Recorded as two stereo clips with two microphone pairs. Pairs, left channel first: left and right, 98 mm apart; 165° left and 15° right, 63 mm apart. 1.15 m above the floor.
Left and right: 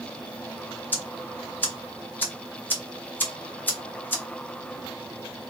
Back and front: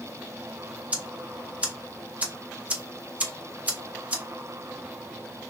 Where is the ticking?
30° left, 0.7 m.